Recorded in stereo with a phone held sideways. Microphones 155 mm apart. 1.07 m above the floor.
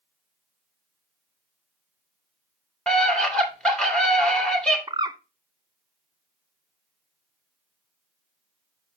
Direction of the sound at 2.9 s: 5° left (ahead or behind).